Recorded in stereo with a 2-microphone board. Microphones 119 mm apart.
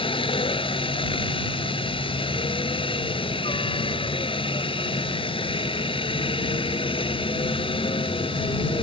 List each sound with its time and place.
0.0 s a helicopter: 45° left (ahead or behind)